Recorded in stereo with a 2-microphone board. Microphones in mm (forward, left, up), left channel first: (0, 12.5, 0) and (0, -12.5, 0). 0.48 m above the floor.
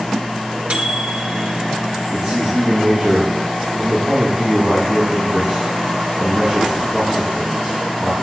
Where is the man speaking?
10° right (ahead or behind), 3.5 m.